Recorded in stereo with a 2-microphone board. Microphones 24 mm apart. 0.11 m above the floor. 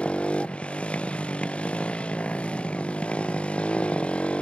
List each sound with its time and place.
0.0 s a motorcycle: 65° left (ahead or behind)